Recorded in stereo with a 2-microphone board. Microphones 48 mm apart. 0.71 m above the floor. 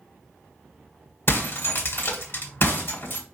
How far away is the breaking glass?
About 1.4 m.